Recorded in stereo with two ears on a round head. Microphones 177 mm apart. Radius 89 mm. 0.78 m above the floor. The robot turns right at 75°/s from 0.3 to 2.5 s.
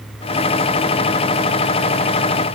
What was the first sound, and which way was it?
Only background noise.